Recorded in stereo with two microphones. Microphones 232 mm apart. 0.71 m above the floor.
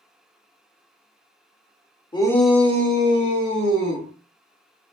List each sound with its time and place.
2.1 s a shout: 20° left (ahead or behind), 0.8 m; by 4.1 s 60° right (ahead or behind), 1.6 m